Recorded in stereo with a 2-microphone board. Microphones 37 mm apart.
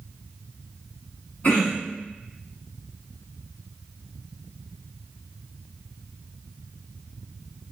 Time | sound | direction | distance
1.4 | throat clearing | 45° left (ahead or behind) | 1.3 m